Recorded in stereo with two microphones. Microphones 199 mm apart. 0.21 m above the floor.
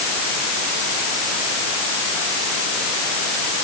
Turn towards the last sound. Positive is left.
No sound to turn to.